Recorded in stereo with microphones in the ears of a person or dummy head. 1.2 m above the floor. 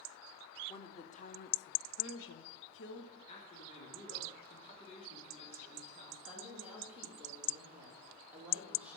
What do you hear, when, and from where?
0.7 s a woman speaking: 25° left (ahead or behind), 1.1 m; by 3.2 s 55° left (ahead or behind), 1.4 m
3.3 s a man speaking: 35° left (ahead or behind), 2.5 m
6.2 s a woman speaking: 5° right (ahead or behind), 3.5 m